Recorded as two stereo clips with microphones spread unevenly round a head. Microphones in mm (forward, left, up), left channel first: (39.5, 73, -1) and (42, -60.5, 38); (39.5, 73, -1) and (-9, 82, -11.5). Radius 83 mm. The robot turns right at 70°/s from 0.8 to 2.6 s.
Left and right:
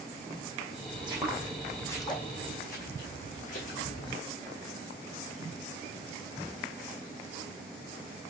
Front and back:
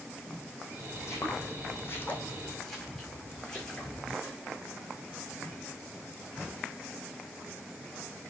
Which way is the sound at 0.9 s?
45° right.